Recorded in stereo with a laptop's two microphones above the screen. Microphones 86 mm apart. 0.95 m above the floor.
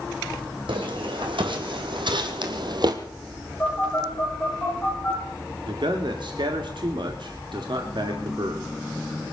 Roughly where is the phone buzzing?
Centre.